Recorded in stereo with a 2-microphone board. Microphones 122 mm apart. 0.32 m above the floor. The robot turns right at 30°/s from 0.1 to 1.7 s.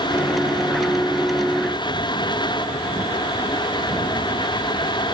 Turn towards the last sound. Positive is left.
No sound to turn to.